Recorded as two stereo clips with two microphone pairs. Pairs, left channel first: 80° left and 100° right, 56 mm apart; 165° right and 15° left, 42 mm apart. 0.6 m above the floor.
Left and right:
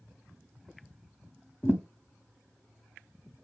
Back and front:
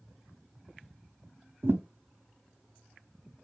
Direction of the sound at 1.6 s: 25° left.